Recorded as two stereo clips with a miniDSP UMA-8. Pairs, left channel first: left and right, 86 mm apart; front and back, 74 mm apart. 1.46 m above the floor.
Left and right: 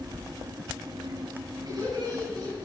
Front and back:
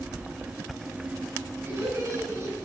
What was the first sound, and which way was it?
Laughter, 125° right.